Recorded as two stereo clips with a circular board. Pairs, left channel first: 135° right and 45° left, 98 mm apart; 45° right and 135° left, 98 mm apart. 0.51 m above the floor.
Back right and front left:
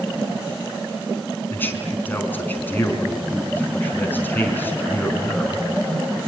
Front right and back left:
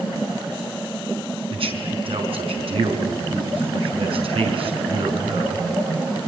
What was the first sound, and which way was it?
A man speaking, 155° left.